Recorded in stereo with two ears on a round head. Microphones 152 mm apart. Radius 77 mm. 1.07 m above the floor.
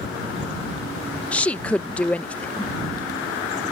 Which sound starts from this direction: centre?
A woman speaking, at 1.3 s.